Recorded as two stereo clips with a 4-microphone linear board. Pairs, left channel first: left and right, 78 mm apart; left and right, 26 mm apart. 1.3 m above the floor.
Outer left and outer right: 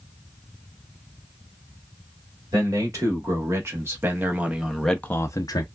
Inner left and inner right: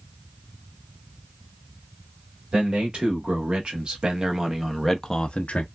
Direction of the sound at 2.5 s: 45° right (ahead or behind).